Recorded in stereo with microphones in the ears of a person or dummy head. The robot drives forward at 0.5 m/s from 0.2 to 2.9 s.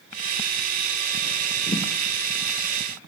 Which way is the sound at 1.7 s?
30° left (ahead or behind).